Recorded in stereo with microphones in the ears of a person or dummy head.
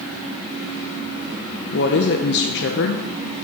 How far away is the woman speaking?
About 0.6 m.